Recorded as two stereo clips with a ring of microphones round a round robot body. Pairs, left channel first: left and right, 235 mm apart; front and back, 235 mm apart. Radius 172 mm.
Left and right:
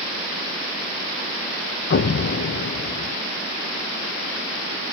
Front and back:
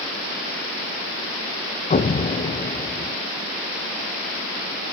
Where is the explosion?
55° left, 0.8 m.